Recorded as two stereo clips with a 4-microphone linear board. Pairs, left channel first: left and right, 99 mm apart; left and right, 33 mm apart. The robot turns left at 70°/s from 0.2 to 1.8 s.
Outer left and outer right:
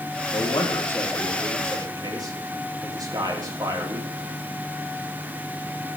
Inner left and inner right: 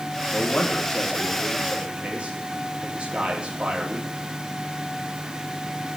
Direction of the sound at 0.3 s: 65° left.